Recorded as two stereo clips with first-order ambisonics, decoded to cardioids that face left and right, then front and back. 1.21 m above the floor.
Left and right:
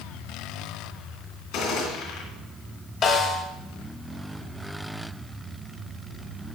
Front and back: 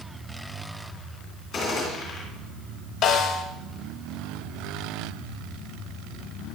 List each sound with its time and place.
1.5 s a gunshot: 65° left, 3 m
3.0 s a snare drum: 45° left, 1.2 m